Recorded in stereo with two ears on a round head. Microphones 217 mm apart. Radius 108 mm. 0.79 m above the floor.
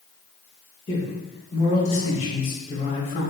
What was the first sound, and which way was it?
A man speaking, 25° left (ahead or behind).